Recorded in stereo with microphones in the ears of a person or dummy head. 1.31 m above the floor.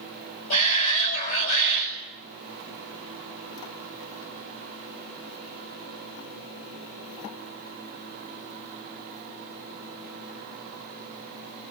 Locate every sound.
0.5 s a shout: 50° left (ahead or behind), 7 m